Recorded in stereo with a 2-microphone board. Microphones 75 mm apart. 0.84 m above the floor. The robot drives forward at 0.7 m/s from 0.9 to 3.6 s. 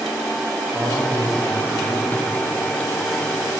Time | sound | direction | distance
0.7 | a man speaking | 15° right (ahead or behind) | 1.2 m